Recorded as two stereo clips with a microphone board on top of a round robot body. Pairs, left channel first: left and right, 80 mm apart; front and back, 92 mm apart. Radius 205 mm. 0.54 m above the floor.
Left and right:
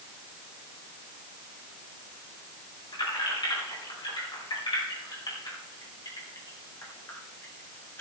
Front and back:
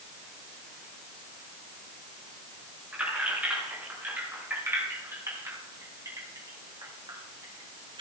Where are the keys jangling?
105° left, 5.5 m; by 8.0 s 155° left, 3 m.